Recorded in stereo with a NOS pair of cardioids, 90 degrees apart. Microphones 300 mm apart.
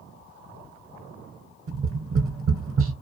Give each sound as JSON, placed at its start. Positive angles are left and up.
{"t": 1.7, "sound": "tapping", "azimuth_deg": -50, "distance_m": 0.9}